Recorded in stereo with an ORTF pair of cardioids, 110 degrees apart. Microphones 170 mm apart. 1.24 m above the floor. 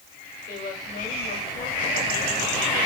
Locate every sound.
0.5 s a woman speaking: 55° left, 5 m